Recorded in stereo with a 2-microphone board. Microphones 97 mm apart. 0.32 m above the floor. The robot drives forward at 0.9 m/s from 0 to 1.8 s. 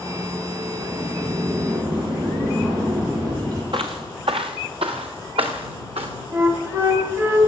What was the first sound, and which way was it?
A sliding door, 45° right (ahead or behind).